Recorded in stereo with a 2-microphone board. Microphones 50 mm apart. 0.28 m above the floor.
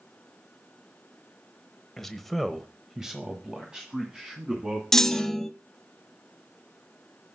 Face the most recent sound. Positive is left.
turn(degrees=10)  # may be behind; listen again after turning